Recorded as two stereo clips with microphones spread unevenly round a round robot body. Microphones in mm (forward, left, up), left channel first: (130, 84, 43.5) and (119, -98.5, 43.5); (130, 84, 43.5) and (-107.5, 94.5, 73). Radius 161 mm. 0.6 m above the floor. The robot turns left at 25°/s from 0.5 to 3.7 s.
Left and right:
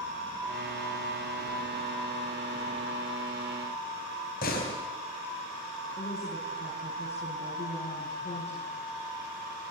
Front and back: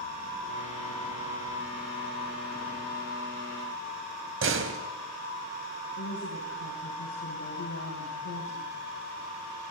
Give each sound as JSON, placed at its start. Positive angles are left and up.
{"t": 4.4, "sound": "a door slam", "azimuth_deg": 140, "distance_m": 3.5}
{"t": 6.0, "sound": "a woman speaking", "azimuth_deg": 30, "distance_m": 8.0}